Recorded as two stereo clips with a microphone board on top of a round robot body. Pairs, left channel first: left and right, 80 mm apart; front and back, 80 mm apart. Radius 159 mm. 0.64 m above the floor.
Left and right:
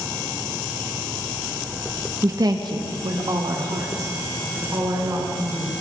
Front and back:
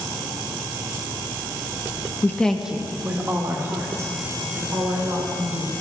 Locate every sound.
2.2 s a woman speaking: 50° right, 1.0 m; by 5.7 s 135° right, 5.5 m